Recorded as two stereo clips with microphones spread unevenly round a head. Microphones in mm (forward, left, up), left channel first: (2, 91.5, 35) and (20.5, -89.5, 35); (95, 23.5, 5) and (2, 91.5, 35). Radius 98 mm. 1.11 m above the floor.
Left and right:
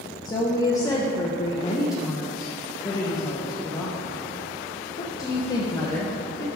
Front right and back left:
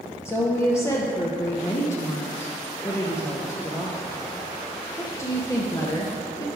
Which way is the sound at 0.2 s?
25° left.